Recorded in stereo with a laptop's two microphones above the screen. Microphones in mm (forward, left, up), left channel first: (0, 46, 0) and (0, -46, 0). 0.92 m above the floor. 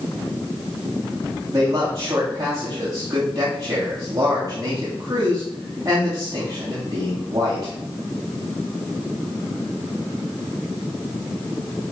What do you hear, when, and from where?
1.5 s a man speaking: 40° right (ahead or behind), 5.5 m